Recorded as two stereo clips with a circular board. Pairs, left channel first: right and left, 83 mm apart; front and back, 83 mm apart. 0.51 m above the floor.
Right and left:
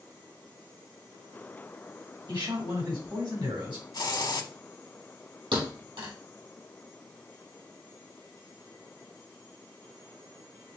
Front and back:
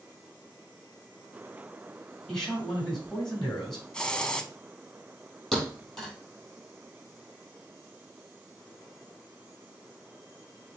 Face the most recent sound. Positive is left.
turn(degrees=85)